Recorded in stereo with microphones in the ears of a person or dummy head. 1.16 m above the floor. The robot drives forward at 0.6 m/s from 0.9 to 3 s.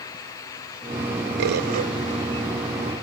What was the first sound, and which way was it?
A bird, 60° right (ahead or behind).